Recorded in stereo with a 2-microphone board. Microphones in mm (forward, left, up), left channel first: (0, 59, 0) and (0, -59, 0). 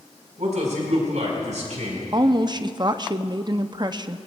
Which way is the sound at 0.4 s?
80° right.